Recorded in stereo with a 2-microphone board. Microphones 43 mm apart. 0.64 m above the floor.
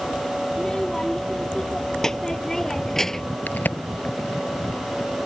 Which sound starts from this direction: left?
A crack, at 3.5 s.